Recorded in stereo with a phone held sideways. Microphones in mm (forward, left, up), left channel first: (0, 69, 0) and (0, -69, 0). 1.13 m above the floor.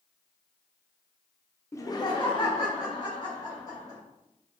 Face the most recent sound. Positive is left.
turn(degrees=30)  # may be behind; listen again after turning